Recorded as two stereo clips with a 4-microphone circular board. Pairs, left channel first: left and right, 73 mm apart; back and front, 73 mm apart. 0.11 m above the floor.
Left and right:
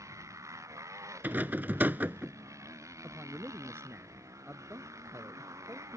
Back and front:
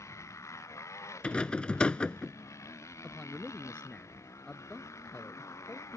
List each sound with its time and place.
0.0 s a motorcycle: 135° right
1.2 s a rattle: 120° right
3.0 s a man speaking: 115° right